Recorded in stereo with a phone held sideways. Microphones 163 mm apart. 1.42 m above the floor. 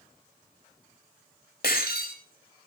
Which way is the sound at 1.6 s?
80° left.